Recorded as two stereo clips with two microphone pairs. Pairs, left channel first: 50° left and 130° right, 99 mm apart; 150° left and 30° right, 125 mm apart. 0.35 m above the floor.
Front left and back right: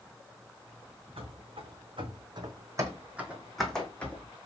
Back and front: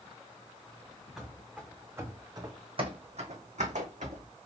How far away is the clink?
No clink in this recording.